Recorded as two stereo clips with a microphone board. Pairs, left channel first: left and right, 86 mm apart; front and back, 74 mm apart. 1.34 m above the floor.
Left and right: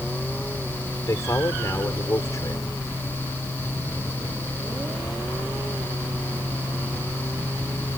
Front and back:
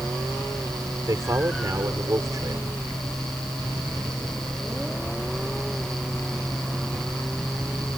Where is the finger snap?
I don't hear a finger snap.